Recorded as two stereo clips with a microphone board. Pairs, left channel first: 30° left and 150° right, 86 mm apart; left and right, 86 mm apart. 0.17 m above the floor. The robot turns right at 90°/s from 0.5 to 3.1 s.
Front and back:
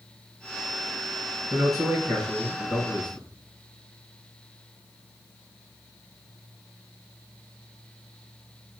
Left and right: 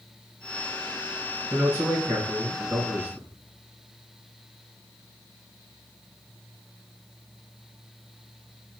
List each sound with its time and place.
1.5 s a man speaking: 165° right, 2 m; by 3.3 s 20° right, 2 m